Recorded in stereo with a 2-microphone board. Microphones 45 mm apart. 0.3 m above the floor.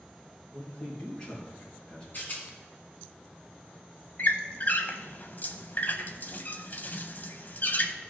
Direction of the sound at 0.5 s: 20° left (ahead or behind).